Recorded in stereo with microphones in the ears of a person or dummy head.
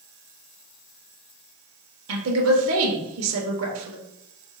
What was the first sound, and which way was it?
A woman speaking, 75° right (ahead or behind).